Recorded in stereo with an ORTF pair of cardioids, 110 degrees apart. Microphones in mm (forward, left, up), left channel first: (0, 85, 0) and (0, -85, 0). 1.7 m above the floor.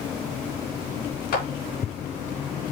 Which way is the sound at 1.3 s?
65° left.